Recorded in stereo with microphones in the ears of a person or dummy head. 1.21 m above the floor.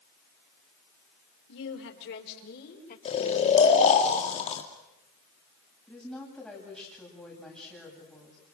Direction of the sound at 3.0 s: 35° left (ahead or behind).